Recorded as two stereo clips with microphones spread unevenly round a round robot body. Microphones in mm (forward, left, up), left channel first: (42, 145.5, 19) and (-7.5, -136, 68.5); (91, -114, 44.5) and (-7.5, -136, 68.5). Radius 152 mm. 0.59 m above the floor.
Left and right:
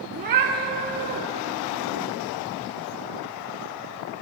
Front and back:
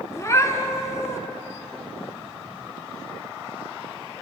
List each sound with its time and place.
0.1 s a cat meowing: 55° right, 0.7 m